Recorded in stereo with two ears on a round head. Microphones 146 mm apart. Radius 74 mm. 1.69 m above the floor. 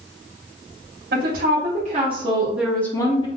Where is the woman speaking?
60° right (ahead or behind), 1.1 m; by 3.3 s 30° left (ahead or behind), 0.7 m.